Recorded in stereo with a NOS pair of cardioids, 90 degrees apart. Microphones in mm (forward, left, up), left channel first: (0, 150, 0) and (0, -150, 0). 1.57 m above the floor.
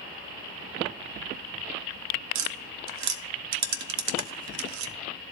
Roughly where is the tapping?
Right.